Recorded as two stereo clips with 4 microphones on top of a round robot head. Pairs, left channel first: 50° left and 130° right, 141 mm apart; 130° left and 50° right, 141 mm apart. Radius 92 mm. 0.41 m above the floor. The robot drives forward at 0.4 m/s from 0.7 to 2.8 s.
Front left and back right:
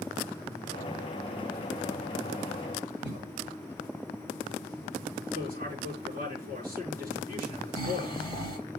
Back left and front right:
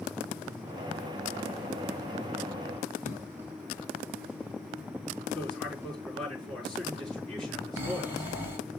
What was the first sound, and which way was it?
A cough, 155° right.